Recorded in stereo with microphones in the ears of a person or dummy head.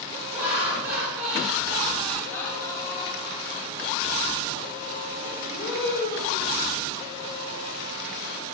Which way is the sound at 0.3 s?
10° right (ahead or behind).